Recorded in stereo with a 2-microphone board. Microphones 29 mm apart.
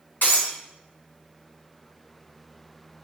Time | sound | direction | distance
0.2 | breaking glass | 80° left | 4 m